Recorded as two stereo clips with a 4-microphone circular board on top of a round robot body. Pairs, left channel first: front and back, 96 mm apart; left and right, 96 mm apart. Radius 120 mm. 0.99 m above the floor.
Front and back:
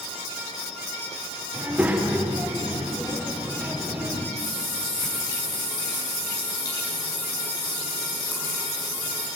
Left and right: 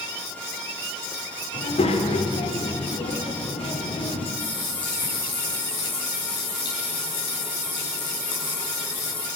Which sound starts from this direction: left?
A child speaking, at 1.5 s.